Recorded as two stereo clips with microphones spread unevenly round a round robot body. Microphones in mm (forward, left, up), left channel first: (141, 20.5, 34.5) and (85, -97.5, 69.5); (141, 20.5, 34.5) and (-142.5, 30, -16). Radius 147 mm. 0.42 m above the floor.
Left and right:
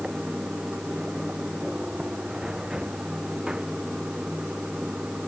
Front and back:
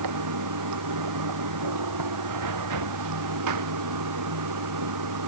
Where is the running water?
160° left.